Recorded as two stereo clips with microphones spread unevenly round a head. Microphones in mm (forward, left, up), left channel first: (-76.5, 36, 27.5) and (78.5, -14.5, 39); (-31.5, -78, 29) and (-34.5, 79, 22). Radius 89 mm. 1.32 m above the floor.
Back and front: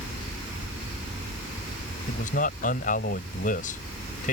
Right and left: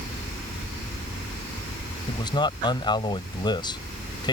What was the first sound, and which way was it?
A man speaking, 150° right.